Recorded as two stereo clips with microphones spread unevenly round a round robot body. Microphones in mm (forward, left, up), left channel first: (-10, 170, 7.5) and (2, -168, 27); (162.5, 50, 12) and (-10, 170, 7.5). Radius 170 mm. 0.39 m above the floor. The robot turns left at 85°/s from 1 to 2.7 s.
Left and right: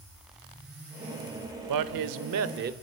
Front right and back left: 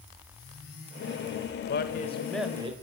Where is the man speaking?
65° right, 1.1 m; by 2.7 s 150° right, 1.1 m.